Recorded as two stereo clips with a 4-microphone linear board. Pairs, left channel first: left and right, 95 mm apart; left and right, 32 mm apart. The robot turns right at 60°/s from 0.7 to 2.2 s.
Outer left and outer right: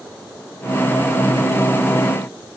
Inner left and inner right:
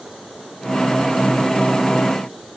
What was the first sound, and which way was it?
Only background noise.